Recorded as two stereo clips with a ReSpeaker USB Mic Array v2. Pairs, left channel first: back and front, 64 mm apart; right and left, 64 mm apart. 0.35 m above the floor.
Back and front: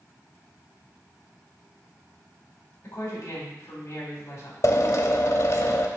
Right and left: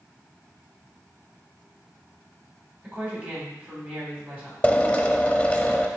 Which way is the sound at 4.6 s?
160° right.